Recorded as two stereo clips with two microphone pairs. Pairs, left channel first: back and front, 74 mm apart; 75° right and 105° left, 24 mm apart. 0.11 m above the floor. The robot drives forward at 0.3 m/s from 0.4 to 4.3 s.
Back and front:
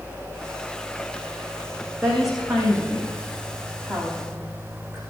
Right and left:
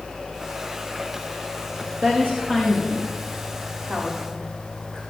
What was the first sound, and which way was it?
A woman speaking, 85° left.